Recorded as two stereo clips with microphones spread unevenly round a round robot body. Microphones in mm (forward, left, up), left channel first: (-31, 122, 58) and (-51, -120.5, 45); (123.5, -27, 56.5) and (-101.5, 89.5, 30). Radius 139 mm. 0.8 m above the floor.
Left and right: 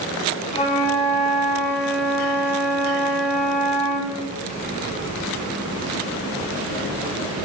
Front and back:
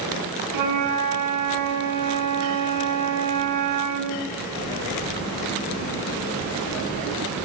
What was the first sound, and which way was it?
A flute, 150° left.